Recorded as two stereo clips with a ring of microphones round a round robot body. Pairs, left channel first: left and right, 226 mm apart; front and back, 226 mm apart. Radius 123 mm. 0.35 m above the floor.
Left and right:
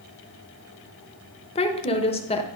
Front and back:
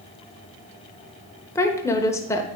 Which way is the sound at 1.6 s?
65° left.